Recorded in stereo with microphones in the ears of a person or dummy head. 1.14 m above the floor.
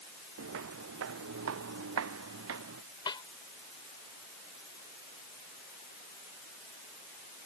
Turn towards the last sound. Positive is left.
turn(degrees=20)  # may be behind; listen again after turning